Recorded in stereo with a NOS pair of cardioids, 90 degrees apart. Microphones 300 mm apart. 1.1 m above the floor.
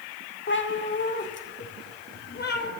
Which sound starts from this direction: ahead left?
A cat meowing, at 0.5 s.